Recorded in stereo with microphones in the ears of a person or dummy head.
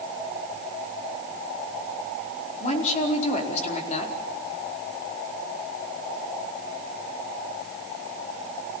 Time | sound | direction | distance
2.6 | a woman speaking | 40° left (ahead or behind) | 4.5 m